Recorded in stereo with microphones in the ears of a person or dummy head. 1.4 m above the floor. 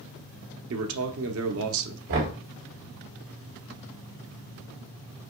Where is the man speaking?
70° right (ahead or behind), 0.8 m.